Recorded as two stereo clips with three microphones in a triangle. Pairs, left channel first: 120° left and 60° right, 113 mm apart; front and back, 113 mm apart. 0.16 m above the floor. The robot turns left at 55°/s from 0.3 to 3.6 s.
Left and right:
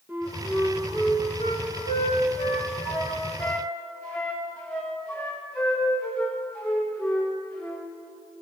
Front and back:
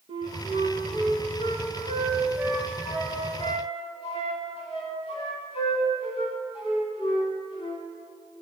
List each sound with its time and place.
0.1 s a flute: 140° right, 7 m; by 7.9 s 40° left, 7 m